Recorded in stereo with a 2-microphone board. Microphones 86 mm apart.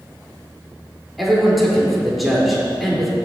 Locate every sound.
1.2 s a man speaking: centre (ahead or behind), 4 m